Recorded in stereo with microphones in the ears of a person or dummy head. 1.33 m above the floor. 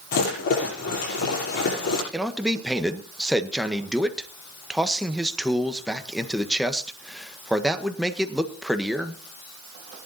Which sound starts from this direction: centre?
A man speaking, at 2.1 s.